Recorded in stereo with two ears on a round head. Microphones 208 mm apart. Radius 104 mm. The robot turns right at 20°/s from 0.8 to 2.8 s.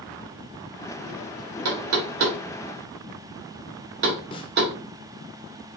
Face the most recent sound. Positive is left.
turn(degrees=20)  # may be behind; listen again after turning